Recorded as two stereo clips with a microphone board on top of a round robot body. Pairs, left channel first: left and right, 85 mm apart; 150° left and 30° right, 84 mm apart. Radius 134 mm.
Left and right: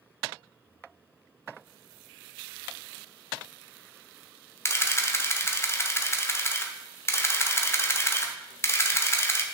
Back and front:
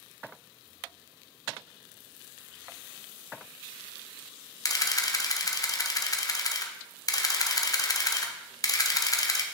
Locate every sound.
4.7 s a camera shutter: 135° left, 1.0 m